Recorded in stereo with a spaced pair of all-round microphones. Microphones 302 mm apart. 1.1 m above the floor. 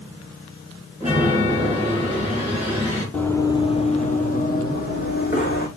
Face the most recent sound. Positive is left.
turn(degrees=30)  # may be behind; listen again after turning